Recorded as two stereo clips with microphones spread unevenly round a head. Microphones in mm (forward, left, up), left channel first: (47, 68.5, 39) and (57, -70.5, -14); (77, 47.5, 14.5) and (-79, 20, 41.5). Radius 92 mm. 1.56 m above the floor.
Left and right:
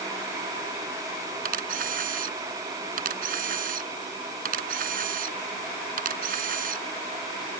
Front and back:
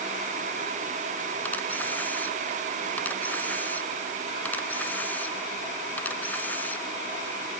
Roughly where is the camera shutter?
Right.